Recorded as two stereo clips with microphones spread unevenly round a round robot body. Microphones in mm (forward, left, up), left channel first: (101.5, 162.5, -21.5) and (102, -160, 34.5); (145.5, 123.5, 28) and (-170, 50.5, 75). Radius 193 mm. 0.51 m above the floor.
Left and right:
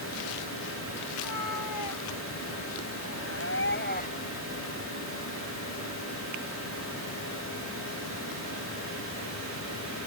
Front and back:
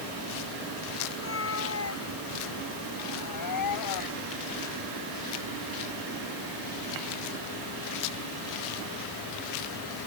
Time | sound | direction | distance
1.1 | a cat meowing | 65° left | ?